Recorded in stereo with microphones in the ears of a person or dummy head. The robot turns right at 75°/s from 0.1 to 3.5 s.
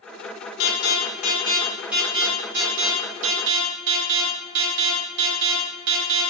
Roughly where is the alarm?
Left.